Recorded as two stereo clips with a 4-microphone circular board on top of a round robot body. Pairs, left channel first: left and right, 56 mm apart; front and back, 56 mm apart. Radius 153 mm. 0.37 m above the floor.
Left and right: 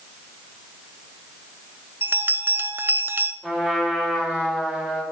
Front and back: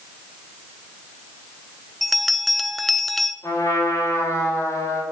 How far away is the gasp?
I don't hear a gasp.